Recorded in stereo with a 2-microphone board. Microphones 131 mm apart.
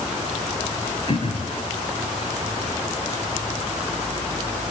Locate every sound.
1.1 s throat clearing: 45° left (ahead or behind), 4.5 m